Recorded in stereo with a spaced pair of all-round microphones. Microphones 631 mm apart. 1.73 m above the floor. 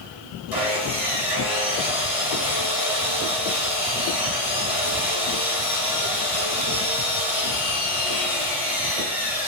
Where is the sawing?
55° left (ahead or behind), 2.5 m.